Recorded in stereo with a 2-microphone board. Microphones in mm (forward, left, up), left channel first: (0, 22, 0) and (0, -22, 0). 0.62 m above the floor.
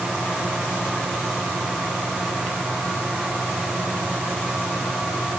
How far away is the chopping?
I don't hear chopping.